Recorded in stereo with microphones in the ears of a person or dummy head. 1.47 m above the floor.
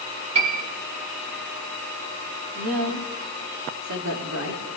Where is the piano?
30° right (ahead or behind), 3 m.